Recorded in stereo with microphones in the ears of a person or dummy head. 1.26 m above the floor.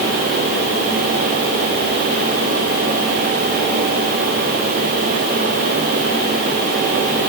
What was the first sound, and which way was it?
Only background noise.